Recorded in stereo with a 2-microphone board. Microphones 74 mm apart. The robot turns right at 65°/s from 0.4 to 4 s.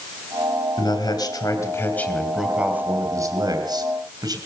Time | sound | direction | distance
0.8 | a man speaking | 80° left | 2.5 m